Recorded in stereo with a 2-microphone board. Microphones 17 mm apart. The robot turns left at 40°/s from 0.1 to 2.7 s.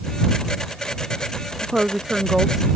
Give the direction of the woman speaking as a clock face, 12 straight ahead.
4 o'clock.